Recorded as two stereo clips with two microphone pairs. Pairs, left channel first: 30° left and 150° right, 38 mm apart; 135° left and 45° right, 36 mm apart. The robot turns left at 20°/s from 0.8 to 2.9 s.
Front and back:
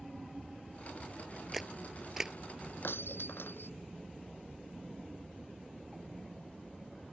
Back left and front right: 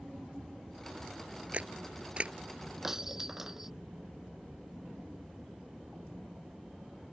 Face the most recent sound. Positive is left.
turn(degrees=35)